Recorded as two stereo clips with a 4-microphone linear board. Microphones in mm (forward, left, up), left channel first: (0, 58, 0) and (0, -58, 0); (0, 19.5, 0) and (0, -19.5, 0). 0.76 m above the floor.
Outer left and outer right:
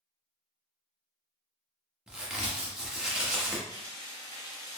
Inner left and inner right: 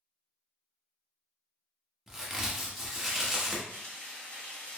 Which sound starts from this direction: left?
Frying, at 3.7 s.